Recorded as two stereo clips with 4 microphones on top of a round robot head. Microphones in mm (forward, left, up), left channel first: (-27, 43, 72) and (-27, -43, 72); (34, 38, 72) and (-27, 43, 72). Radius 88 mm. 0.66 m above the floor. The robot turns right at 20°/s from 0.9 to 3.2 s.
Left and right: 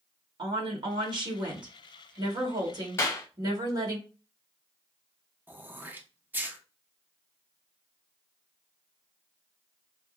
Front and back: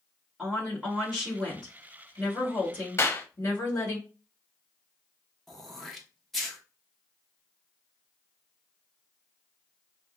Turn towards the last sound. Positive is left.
turn(degrees=-85)